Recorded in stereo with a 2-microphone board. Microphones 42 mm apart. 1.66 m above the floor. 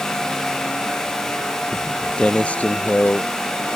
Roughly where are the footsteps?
Centre.